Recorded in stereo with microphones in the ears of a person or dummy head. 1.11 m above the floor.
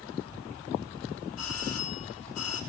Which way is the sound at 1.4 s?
85° left.